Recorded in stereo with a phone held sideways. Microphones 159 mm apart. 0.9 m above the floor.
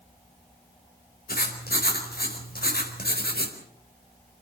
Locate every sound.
1.3 s writing: 75° left (ahead or behind), 4.5 m